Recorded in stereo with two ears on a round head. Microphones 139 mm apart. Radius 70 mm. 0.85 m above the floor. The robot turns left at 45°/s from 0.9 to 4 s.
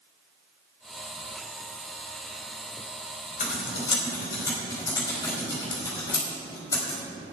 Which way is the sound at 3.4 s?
50° left (ahead or behind).